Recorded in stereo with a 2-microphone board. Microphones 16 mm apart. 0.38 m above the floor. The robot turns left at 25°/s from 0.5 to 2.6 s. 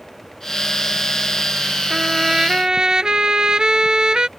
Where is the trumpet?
40° right (ahead or behind); by 4.3 s 55° right (ahead or behind).